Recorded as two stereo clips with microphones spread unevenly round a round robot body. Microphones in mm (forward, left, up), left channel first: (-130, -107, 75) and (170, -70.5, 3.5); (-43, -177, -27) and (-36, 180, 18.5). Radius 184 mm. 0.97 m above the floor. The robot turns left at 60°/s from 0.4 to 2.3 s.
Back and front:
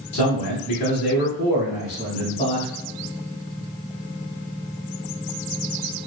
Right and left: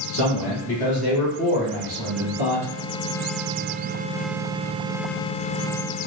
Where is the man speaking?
140° right, 2.0 m; by 2.7 s 105° left, 2.0 m.